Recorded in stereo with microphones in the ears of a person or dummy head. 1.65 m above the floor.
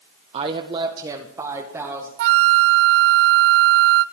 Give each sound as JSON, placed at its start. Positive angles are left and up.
{"t": 0.3, "sound": "a woman speaking", "side_deg": -35, "distance_m": 1.1}
{"t": 2.2, "sound": "a flute", "side_deg": -60, "distance_m": 0.5}